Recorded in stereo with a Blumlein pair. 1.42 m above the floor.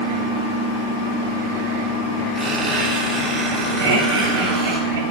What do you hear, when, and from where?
2.4 s a squeak: 5° right, 2.5 m
3.8 s laughter: 65° right, 3 m